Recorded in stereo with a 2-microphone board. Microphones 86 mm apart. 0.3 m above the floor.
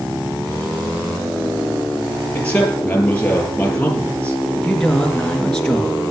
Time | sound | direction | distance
2.4 | a man speaking | 15° left (ahead or behind) | 6.5 m
4.6 | a man speaking | 5° left (ahead or behind) | 4 m